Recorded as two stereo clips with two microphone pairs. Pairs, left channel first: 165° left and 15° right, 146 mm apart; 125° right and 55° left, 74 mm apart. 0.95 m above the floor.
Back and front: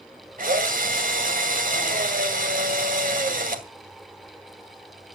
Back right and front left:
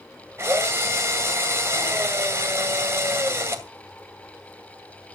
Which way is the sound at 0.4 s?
Straight ahead.